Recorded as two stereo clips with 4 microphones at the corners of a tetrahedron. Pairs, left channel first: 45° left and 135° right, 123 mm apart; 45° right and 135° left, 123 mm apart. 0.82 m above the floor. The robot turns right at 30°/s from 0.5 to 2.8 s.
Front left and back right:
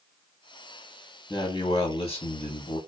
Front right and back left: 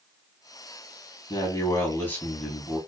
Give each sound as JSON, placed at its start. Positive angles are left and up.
{"t": 1.3, "sound": "a man speaking", "azimuth_deg": 0, "distance_m": 0.8}